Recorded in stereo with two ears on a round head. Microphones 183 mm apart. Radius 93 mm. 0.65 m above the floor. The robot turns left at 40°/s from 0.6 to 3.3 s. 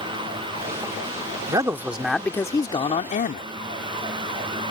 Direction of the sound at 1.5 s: 155° right.